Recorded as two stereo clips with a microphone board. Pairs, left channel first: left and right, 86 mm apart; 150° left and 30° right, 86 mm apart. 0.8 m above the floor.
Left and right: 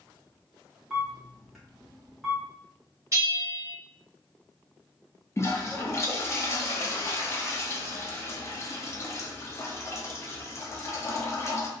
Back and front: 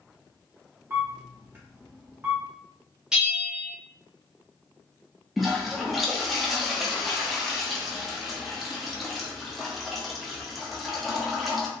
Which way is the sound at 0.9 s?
5° right.